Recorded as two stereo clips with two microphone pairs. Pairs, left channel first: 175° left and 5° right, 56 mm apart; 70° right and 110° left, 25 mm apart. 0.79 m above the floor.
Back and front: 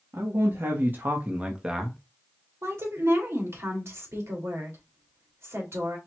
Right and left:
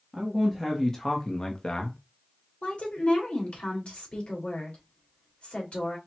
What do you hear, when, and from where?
0.1 s a man speaking: 10° left, 1.4 m; by 2.0 s 85° right, 1.1 m
2.6 s a woman speaking: 40° right, 2.5 m